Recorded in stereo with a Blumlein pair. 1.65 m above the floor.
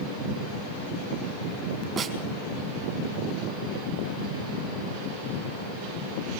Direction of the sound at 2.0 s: 25° right.